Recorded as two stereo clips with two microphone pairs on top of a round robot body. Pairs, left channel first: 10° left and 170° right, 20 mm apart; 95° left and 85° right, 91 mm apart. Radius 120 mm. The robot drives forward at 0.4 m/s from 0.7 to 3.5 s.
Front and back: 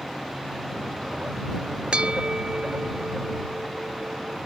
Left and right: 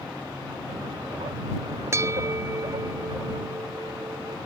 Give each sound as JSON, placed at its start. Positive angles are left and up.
{"t": 1.9, "sound": "a bell", "azimuth_deg": -145}